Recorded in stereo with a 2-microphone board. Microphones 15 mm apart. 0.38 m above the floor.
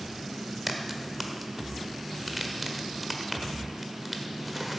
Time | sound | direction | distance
0.7 | a crack | 5° right (ahead or behind) | 1.3 m